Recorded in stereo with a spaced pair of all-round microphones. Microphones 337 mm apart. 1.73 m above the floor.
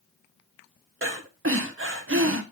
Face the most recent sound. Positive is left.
turn(degrees=-40)  # may be behind; listen again after turning